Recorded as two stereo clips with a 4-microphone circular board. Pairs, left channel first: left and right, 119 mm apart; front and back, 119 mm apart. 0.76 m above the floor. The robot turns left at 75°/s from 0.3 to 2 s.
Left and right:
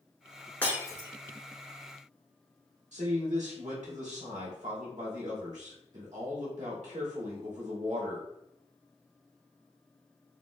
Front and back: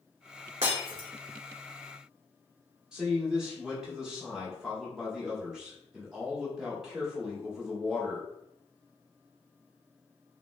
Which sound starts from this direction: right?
A man speaking, at 2.9 s.